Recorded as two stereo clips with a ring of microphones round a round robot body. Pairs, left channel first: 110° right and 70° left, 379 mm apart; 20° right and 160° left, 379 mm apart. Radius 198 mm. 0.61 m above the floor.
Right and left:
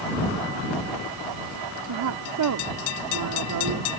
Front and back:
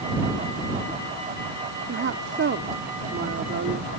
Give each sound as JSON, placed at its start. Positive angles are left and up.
{"t": 1.9, "sound": "a woman speaking", "azimuth_deg": 100}